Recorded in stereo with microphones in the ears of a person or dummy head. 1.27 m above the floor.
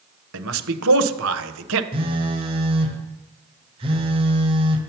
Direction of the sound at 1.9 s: 25° right (ahead or behind).